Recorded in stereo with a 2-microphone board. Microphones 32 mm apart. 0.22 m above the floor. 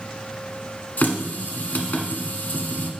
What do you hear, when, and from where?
1.0 s a running tap: 60° left (ahead or behind), 1.2 m